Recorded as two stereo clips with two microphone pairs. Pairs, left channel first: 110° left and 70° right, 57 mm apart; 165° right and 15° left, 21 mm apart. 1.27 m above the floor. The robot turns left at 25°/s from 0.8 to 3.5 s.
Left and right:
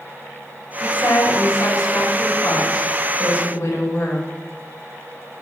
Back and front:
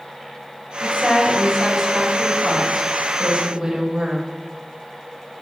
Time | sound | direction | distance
0.8 | a woman speaking | 130° left | 5 m